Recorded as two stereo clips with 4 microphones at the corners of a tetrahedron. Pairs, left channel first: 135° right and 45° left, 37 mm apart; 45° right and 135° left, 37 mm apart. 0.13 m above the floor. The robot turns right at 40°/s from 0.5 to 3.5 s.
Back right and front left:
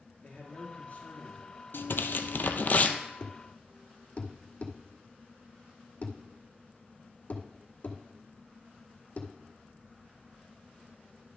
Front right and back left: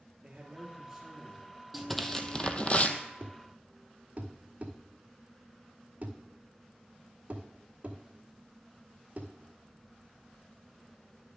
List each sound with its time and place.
0.2 s a man speaking: 160° right, 3 m; by 1.6 s 115° right, 3 m
1.7 s tearing paper: 135° right, 0.7 m; by 3.0 s 85° right, 0.7 m
3.2 s a thud: 170° left, 1.0 m; by 9.3 s straight behind, 1.0 m